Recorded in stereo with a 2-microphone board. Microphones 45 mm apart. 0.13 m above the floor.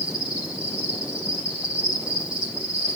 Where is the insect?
20° right (ahead or behind), 5 m.